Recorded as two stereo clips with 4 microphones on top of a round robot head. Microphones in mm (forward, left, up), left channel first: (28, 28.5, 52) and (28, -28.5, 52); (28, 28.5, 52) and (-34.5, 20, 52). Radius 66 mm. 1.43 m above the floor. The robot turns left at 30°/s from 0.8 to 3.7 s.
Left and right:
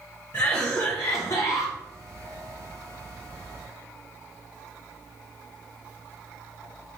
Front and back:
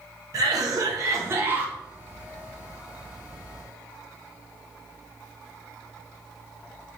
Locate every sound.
0.3 s a cough: 155° left, 0.8 m; by 1.8 s 125° left, 0.8 m